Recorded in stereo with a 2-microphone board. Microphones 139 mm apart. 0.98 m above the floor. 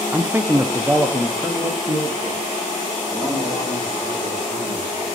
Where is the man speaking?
15° right (ahead or behind), 0.5 m; by 5.1 s 5° right (ahead or behind), 3.5 m.